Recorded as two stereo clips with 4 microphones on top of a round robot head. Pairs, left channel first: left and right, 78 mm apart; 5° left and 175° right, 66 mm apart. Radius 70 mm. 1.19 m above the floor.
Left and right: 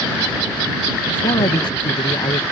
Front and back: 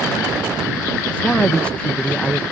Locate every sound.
1.1 s a man speaking: 80° left